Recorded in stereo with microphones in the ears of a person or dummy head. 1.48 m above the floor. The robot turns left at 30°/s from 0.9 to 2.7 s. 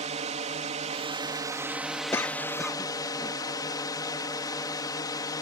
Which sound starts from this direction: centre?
A cough, at 2.1 s.